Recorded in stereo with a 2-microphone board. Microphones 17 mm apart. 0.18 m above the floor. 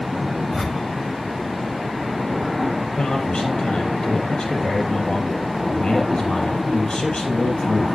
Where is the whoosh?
10° left (ahead or behind), 0.9 m.